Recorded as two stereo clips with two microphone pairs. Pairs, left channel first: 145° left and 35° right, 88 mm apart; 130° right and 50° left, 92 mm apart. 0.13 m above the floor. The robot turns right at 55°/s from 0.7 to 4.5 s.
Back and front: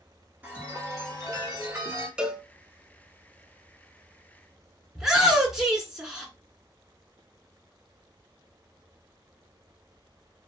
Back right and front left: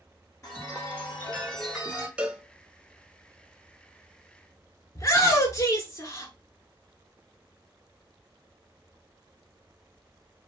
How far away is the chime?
About 1.8 m.